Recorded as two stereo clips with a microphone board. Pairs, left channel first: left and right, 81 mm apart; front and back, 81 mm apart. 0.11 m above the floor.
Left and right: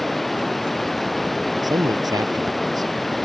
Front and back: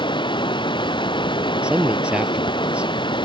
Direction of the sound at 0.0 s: Straight ahead.